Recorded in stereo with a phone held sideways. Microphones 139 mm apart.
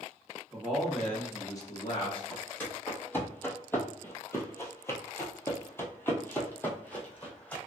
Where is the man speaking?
10° right (ahead or behind), 1.2 m; by 2.2 s 45° left (ahead or behind), 1.2 m.